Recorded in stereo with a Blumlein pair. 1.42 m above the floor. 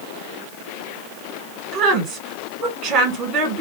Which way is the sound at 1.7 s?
25° right.